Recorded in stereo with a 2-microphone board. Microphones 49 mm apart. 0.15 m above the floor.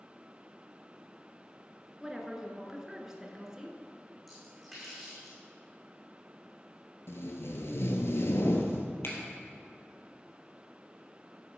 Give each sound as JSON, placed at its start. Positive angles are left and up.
{"t": 2.0, "sound": "a woman speaking", "side_deg": -15, "distance_m": 1.9}
{"t": 4.3, "sound": "a splash", "side_deg": 0, "distance_m": 5.0}
{"t": 7.1, "sound": "tape being pulled", "side_deg": 65, "distance_m": 1.4}
{"t": 9.0, "sound": "a finger snap", "side_deg": 60, "distance_m": 2.5}